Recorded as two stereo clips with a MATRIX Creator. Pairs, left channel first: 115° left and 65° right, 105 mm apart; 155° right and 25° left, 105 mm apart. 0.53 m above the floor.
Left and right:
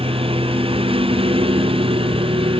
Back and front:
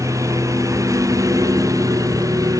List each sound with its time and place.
0.0 s a lawn mower: 40° right; by 2.6 s 35° right